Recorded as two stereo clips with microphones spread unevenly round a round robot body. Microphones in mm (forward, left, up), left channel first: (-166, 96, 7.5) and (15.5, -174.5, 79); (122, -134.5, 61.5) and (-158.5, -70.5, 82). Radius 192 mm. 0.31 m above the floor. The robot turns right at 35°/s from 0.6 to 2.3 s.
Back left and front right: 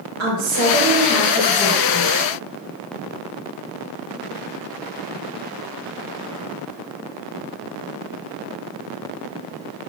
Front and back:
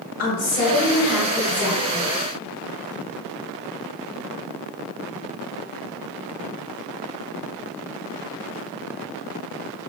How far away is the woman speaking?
About 1.5 m.